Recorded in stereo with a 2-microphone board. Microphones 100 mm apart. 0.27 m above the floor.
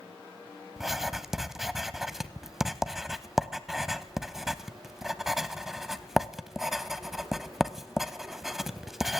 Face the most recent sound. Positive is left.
turn(degrees=-5)  # may be behind; listen again after turning